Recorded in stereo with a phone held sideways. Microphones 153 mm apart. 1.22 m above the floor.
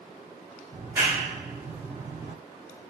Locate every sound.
0.7 s a clap: 15° right (ahead or behind), 1.2 m